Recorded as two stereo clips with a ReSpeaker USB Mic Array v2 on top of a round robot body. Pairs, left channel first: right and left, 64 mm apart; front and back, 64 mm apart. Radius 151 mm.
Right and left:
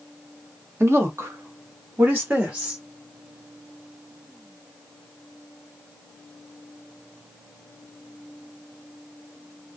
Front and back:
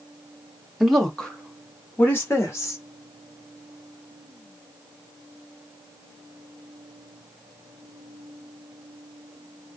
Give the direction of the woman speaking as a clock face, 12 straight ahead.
9 o'clock.